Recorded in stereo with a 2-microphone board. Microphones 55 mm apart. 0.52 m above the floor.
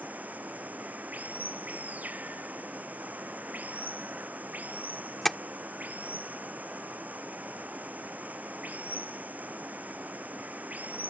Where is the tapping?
5° left (ahead or behind).